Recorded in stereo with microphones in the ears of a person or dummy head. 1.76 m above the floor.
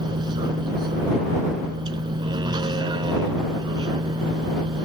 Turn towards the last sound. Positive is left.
turn(degrees=-25)  # may be behind; listen again after turning